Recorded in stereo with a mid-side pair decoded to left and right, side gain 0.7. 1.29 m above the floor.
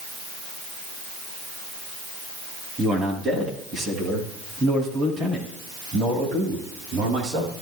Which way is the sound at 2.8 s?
25° right.